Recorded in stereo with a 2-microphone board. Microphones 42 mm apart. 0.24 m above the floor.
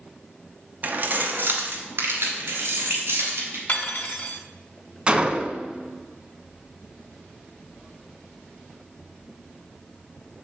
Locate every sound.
0.8 s keys jangling: 40° right (ahead or behind), 0.9 m; by 3.6 s 65° right (ahead or behind), 3.5 m
3.7 s cutlery clinking: 45° left (ahead or behind), 1.2 m
5.1 s a gunshot: 25° right (ahead or behind), 0.8 m